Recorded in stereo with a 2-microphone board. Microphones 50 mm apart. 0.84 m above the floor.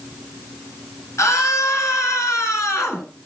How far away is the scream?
About 9.5 m.